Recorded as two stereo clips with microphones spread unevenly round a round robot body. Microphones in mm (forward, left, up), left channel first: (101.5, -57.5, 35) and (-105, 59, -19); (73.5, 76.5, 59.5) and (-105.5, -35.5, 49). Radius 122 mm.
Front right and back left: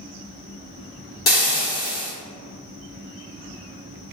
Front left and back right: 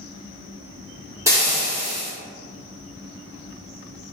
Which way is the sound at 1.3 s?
70° right.